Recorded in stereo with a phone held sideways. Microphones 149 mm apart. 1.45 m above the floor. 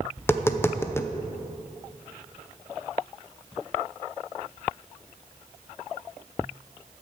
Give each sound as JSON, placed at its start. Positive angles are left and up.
{"t": 0.2, "sound": "tapping", "side_deg": 15, "distance_m": 0.6}